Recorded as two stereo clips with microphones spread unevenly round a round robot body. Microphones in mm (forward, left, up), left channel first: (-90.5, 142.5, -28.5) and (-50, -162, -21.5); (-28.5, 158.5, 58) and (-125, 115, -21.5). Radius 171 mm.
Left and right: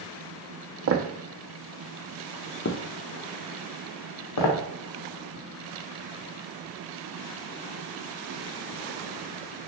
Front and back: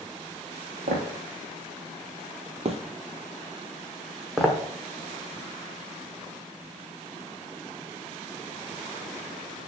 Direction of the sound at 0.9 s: 125° right.